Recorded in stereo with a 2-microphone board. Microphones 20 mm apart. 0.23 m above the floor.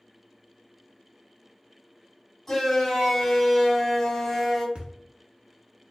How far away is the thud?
About 1.0 m.